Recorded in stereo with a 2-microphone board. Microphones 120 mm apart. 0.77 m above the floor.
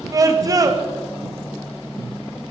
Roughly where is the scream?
Right.